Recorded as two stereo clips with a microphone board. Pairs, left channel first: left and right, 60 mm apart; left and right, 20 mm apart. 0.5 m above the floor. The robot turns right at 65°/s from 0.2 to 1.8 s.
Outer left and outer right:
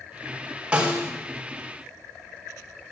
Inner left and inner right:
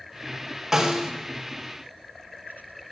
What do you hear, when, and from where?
0.7 s a snare drum: 20° right (ahead or behind), 1.6 m; by 1.1 s 45° right (ahead or behind), 1.6 m